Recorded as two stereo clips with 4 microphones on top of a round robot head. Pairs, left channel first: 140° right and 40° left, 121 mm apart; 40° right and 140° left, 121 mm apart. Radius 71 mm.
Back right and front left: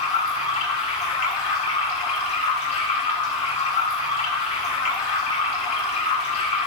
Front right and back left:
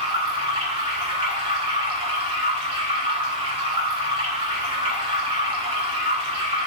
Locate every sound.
0.0 s running water: 175° right, 3.5 m